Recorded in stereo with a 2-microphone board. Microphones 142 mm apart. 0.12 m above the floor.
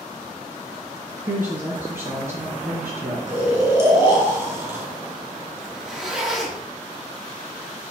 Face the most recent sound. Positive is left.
turn(degrees=-5)  # may be behind; listen again after turning